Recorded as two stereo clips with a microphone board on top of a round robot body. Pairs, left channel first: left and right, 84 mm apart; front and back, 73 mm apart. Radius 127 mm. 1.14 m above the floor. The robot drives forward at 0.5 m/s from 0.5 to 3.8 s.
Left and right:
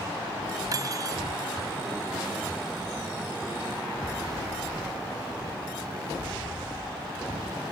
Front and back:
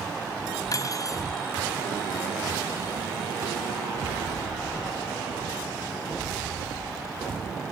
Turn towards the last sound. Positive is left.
turn(degrees=-55)